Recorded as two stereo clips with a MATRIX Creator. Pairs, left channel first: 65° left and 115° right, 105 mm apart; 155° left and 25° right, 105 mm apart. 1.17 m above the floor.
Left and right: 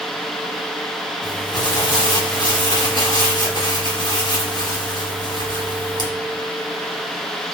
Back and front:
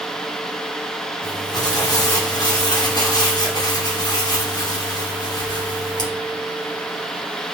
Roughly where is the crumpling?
Left.